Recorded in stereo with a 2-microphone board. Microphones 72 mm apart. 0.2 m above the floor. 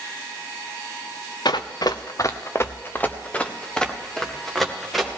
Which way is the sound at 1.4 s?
75° left (ahead or behind).